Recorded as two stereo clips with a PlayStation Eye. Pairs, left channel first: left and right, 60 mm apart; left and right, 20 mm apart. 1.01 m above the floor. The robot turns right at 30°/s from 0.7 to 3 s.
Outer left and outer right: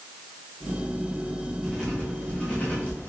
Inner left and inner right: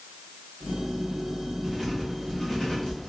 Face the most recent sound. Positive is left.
turn(degrees=35)  # may be behind; listen again after turning